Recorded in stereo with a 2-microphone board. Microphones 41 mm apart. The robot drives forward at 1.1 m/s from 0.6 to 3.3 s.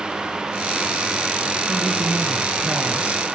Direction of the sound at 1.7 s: 20° right (ahead or behind).